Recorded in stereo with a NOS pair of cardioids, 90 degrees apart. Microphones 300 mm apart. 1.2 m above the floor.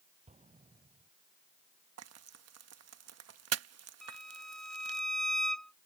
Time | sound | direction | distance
0.3 | an explosion | 20° right | ?
2.0 | frying | 55° right | ?
4.0 | a violin | straight ahead | ?